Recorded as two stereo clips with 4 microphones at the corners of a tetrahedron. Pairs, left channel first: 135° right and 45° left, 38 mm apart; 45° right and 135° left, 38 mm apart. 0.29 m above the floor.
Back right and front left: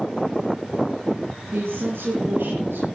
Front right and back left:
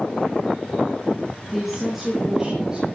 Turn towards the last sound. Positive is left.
turn(degrees=65)